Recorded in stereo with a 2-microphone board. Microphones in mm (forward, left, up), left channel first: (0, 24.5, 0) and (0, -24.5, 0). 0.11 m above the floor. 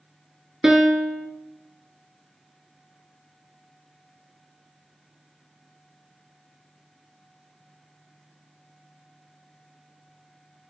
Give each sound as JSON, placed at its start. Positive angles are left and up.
{"t": 0.6, "sound": "a piano", "side_deg": -15, "distance_m": 0.7}